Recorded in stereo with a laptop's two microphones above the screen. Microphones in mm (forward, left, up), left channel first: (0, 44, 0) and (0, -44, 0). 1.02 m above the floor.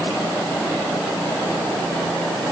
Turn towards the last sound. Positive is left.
No sound to turn to.